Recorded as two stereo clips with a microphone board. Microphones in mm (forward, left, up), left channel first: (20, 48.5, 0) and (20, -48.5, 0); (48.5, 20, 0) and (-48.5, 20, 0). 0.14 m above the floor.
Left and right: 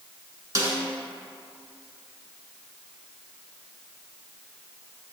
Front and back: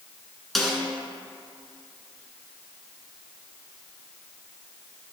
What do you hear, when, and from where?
0.6 s a snare drum: 85° right, 1.6 m